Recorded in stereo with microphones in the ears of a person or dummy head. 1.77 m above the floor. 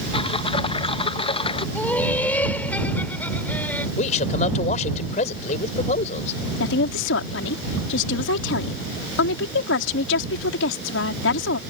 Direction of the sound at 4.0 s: 50° left (ahead or behind).